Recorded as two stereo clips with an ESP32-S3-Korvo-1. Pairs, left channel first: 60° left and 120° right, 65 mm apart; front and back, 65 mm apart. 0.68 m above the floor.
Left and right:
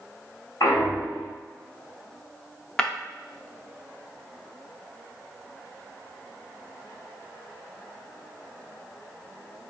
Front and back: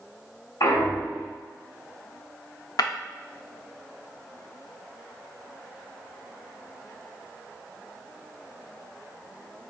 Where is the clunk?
15° left, 1.7 m.